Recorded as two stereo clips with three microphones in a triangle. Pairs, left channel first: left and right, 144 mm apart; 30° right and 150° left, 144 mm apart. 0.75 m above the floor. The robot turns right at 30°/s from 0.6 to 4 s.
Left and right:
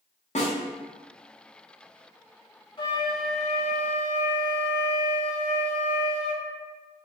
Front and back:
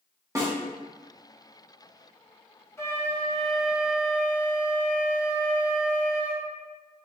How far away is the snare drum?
About 1.3 m.